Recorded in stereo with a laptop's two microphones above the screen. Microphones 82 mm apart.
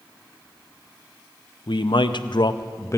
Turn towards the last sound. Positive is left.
turn(degrees=35)  # may be behind; listen again after turning